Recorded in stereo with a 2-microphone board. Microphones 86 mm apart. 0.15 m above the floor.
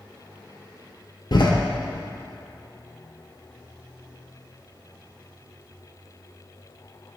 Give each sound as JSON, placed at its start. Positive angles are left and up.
{"t": 1.3, "sound": "a door slam", "side_deg": 55, "distance_m": 1.7}